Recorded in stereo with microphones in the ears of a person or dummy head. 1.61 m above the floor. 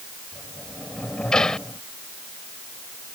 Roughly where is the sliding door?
Centre.